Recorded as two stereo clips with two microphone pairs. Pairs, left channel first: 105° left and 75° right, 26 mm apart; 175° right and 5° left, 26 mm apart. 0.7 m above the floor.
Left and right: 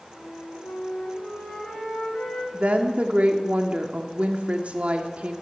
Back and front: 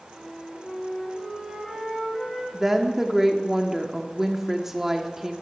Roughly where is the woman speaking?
Right.